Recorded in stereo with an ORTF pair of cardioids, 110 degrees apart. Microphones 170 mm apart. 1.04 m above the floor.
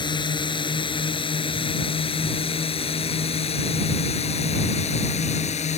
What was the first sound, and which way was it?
A drone, 25° left.